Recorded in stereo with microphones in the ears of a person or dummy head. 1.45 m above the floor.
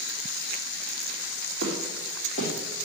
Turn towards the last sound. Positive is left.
turn(degrees=30)  # may be behind; listen again after turning